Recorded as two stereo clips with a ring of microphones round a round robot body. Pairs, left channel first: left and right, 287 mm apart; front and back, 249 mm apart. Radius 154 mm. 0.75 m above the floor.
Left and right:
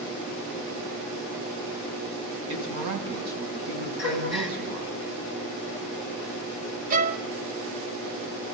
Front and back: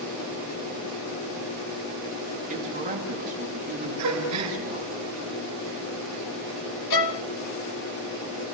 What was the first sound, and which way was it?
A woman speaking, 120° right.